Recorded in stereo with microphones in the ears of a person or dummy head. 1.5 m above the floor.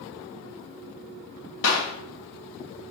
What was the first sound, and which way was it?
A clap, 65° left (ahead or behind).